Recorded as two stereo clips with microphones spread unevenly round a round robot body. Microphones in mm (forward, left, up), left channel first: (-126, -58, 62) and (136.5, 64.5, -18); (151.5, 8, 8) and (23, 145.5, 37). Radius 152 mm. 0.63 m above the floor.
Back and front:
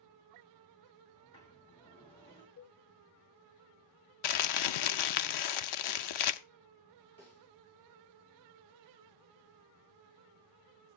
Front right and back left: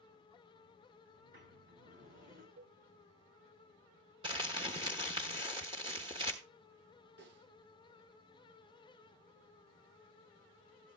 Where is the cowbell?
160° left, 1.4 m.